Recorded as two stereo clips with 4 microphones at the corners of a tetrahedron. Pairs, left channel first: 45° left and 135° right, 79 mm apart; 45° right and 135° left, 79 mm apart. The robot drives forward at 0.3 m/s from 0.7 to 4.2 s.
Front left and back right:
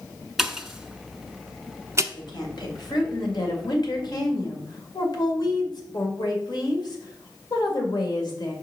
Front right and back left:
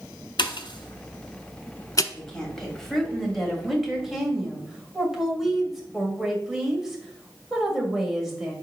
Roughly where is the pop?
Ahead right.